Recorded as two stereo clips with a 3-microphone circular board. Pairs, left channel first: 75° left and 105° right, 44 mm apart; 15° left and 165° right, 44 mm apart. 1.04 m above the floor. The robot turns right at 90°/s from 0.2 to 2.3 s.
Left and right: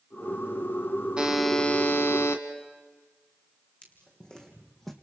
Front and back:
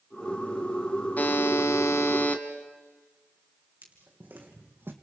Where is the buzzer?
35° right, 1.9 m; by 2.4 s 65° left, 1.9 m.